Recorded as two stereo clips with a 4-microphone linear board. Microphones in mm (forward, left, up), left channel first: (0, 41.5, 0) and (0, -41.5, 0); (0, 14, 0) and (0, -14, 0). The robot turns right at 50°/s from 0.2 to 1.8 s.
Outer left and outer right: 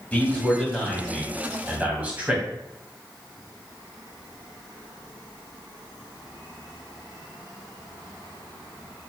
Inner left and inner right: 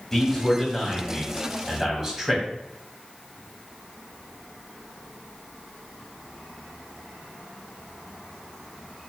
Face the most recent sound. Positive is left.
turn(degrees=-20)  # may be behind; listen again after turning